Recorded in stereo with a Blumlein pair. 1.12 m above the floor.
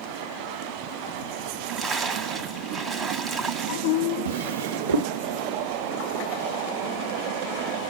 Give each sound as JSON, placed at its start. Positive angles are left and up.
{"t": 1.5, "sound": "a splash", "azimuth_deg": -15, "distance_m": 1.1}
{"t": 4.2, "sound": "a drawer", "azimuth_deg": -70, "distance_m": 1.0}